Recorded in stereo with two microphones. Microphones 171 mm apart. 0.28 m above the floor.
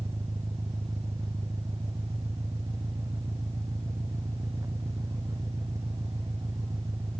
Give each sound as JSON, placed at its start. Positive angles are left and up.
{"t": 0.0, "sound": "an engine running", "side_deg": -15}